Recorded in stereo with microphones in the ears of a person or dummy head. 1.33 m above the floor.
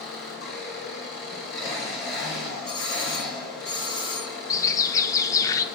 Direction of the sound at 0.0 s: 70° left (ahead or behind).